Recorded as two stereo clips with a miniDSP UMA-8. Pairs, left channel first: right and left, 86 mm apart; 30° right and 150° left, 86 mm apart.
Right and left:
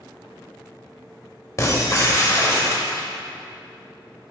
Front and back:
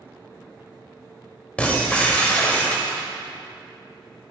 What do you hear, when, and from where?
1.6 s breaking glass: 90° right, 1.6 m